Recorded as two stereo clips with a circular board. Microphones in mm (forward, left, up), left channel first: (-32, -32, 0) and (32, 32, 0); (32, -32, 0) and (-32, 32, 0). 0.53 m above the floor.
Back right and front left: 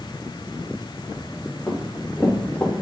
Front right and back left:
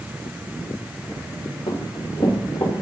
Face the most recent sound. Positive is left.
turn(degrees=-65)